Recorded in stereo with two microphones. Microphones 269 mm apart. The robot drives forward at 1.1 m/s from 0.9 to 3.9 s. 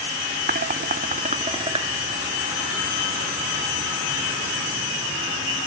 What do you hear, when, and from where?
0.5 s dishes clattering: 35° right (ahead or behind); by 1.9 s 20° right (ahead or behind)